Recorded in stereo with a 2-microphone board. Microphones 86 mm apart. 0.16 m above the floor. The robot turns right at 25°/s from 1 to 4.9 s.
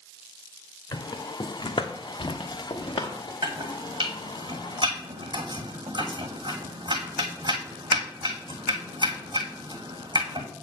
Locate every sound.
0.9 s footsteps: 50° left (ahead or behind), 1.0 m; by 3.3 s 80° left, 1.7 m
3.4 s chopping: 80° right, 1.7 m; by 10.5 s 60° right (ahead or behind), 1.7 m